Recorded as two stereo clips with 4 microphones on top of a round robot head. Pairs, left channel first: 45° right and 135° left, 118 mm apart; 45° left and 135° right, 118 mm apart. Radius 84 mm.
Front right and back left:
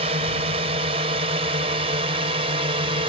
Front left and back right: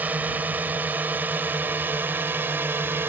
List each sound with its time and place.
0.0 s a drone: 155° left; by 3.1 s 160° left